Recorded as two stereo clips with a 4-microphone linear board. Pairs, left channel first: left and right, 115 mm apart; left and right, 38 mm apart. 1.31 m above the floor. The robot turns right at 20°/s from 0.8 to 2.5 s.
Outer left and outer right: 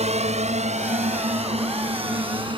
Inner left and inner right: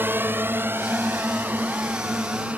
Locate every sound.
0.0 s a drone: 70° right (ahead or behind); by 2.6 s 45° right (ahead or behind)